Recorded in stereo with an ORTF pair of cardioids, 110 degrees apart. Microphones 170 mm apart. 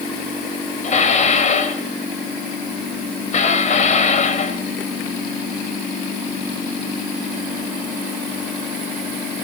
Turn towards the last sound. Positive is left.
turn(degrees=45)